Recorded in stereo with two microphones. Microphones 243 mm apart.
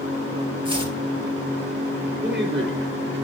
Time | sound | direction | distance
0.7 | chopping | 20° right (ahead or behind) | 2 m
2.2 | a man speaking | 45° right (ahead or behind) | 4.5 m